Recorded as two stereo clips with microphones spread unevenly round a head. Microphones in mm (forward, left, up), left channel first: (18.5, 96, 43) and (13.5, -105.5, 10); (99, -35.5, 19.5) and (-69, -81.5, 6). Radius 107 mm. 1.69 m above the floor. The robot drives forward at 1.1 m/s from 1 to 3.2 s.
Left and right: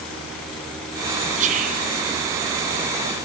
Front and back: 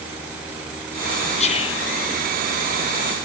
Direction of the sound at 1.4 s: 35° right.